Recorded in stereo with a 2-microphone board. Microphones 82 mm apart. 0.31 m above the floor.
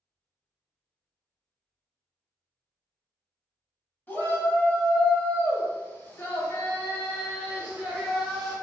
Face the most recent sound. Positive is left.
turn(degrees=10)  # may be behind; listen again after turning